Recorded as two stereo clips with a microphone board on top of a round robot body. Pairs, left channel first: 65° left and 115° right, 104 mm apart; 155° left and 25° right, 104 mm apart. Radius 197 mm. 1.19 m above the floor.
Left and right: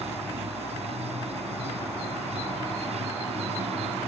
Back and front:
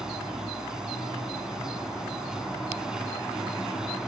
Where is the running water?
105° right.